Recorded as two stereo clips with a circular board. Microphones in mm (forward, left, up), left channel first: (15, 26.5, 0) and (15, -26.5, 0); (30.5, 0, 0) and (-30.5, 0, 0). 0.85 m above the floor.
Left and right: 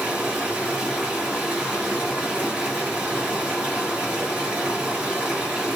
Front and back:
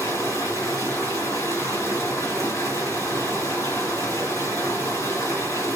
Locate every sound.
0.0 s running water: 25° right, 3 m